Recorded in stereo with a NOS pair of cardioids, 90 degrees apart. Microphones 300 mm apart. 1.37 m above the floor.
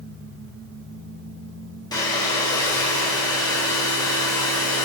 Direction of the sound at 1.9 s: 15° left.